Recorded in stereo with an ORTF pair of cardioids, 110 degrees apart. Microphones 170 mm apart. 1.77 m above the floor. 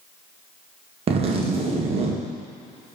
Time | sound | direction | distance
1.1 | a zipper | 35° right | 1.7 m